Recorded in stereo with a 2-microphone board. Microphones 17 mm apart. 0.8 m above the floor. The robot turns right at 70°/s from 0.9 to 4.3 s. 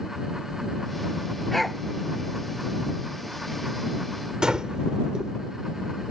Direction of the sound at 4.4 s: 45° right (ahead or behind).